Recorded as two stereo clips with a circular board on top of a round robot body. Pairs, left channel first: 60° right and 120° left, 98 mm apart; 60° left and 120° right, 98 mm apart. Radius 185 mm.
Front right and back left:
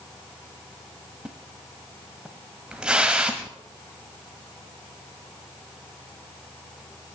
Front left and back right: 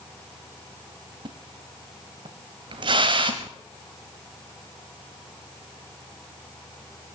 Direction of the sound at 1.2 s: 160° right.